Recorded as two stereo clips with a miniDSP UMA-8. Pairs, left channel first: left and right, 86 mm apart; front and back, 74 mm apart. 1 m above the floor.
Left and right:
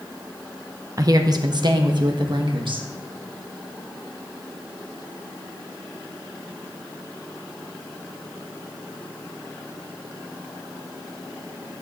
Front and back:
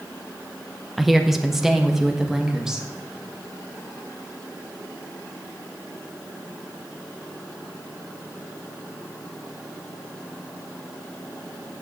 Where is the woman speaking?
90° right, 0.8 m; by 2.9 s 100° right, 1.7 m.